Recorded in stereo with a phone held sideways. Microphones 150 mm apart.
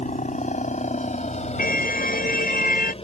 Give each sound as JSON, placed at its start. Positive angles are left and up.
{"t": 0.0, "sound": "a helicopter", "side_deg": 55}
{"t": 1.6, "sound": "a car horn", "side_deg": 75}